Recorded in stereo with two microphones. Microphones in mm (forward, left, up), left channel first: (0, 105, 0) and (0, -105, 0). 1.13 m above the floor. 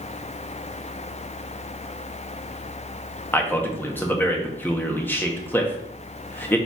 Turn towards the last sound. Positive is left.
turn(degrees=10)  # may be behind; listen again after turning